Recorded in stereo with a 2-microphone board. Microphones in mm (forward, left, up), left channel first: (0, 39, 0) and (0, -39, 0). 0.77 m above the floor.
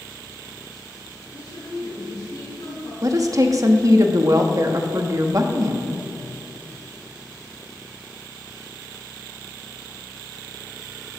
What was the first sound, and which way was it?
A woman speaking, 75° left (ahead or behind).